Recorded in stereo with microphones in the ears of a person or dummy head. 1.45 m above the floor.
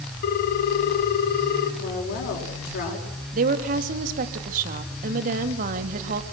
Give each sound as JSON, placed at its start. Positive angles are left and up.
{"t": 0.2, "sound": "a ringtone", "side_deg": 50, "distance_m": 1.4}
{"t": 1.8, "sound": "a woman speaking", "side_deg": 55, "distance_m": 4.0}
{"t": 3.3, "sound": "a woman speaking", "side_deg": -50, "distance_m": 1.9}